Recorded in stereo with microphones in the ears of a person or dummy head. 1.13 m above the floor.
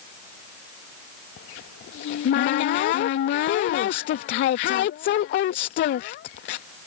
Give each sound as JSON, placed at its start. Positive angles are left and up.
{"t": 1.4, "sound": "a cupboard door", "side_deg": 45}